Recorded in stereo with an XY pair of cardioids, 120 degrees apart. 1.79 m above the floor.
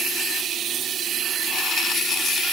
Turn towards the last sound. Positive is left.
No sound to turn to.